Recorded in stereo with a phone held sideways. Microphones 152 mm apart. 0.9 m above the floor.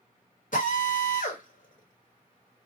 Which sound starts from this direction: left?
A drill, at 0.5 s.